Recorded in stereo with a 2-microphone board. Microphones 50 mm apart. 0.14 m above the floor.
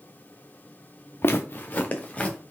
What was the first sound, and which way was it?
Footsteps, 50° left (ahead or behind).